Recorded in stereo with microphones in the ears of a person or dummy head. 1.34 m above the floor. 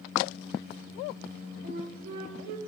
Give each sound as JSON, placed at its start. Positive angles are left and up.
{"t": 1.6, "sound": "a flute", "side_deg": -55, "distance_m": 1.0}